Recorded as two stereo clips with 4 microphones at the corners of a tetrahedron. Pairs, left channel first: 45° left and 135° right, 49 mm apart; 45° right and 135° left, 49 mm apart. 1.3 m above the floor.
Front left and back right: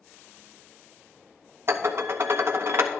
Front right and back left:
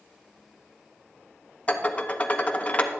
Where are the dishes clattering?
105° right, 0.9 m.